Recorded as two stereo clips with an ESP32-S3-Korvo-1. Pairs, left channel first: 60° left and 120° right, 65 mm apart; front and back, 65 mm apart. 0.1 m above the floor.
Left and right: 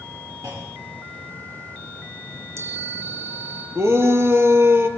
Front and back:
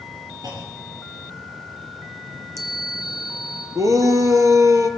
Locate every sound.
0.4 s a clunk: 160° right, 6 m
2.3 s a chime: 160° right, 3 m
3.8 s a shout: 160° right, 3 m